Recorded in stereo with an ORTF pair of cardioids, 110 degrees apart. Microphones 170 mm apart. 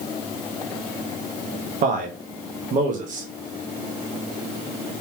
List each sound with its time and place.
1.8 s a man speaking: 55° right, 1.2 m